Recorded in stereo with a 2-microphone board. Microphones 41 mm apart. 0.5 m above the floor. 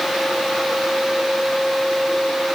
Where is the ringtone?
No ringtone in this recording.